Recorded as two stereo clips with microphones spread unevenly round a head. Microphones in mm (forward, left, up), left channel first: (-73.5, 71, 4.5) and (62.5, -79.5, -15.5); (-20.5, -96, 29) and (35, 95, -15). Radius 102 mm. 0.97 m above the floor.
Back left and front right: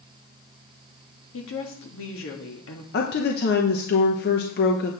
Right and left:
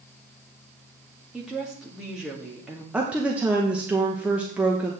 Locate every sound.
1.3 s a woman speaking: 155° left, 1.9 m
2.9 s a woman speaking: 140° left, 0.9 m